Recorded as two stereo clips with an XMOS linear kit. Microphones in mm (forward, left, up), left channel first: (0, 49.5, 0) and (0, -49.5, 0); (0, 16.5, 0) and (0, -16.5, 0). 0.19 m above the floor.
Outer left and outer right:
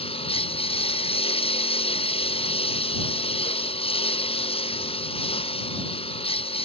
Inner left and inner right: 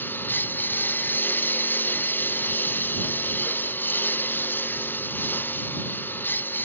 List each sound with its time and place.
0.0 s a lawn mower: 90° left; by 6.7 s 85° left